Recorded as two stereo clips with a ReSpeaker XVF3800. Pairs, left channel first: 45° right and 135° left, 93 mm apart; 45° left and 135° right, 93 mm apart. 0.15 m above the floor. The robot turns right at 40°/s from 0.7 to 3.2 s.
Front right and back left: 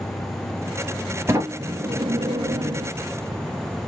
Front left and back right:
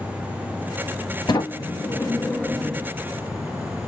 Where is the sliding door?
80° left, 2 m; by 2.9 s 145° left, 2 m.